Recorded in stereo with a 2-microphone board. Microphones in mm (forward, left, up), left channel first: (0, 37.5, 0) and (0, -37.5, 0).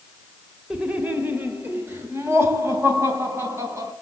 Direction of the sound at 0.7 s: 10° right (ahead or behind).